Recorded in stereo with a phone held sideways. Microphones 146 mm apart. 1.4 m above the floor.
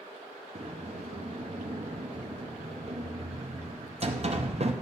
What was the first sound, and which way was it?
A sliding door, 45° right (ahead or behind).